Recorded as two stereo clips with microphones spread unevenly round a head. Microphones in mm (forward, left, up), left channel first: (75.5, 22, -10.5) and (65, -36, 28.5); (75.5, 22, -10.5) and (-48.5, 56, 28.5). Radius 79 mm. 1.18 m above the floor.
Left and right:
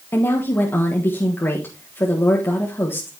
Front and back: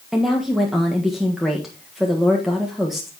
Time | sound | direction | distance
0.1 | a woman speaking | 70° left | 1.4 m